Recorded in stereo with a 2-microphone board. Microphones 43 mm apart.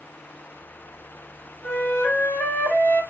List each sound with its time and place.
1.6 s a flute: 55° left (ahead or behind), 1.1 m